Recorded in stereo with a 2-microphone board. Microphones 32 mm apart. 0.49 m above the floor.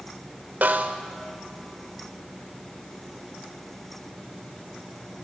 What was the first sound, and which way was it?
A snare drum, 70° right (ahead or behind).